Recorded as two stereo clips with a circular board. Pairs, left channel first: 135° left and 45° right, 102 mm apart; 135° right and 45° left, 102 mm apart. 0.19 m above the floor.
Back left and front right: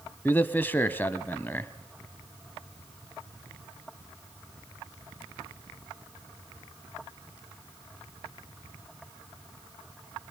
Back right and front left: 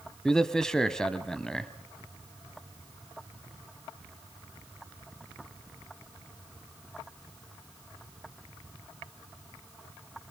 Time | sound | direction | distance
0.2 | a man speaking | 150° left | 1.0 m